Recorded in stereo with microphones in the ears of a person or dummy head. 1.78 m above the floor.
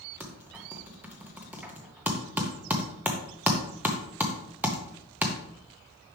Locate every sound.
0.2 s typing on a keyboard: 10° right (ahead or behind), 0.9 m